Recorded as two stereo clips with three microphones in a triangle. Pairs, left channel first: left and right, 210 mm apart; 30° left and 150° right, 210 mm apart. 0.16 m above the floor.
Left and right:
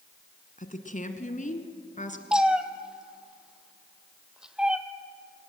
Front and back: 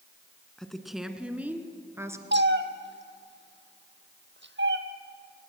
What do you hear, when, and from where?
0.6 s a woman speaking: 115° left, 1.5 m; by 2.2 s 135° left, 2 m
2.3 s a cat meowing: 175° right, 1.1 m